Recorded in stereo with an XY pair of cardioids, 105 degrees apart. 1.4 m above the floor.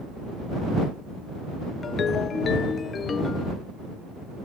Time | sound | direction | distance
1.8 | a ringtone | 45° left | ?